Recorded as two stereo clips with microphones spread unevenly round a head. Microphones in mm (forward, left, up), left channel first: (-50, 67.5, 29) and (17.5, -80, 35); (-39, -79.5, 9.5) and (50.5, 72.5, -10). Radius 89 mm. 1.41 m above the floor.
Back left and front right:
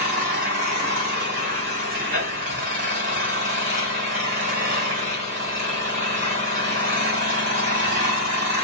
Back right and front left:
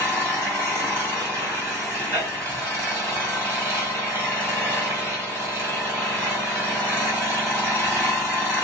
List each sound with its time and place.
0.0 s an engine running: 20° right, 3.5 m